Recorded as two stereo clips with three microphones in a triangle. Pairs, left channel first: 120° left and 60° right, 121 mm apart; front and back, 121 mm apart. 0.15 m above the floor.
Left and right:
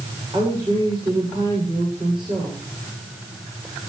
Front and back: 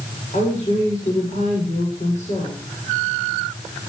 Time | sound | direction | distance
0.3 | a woman speaking | 10° right | 9 m